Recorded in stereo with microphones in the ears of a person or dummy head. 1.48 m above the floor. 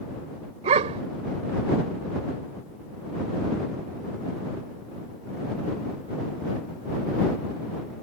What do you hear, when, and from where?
0.6 s a dog barking: 40° right (ahead or behind)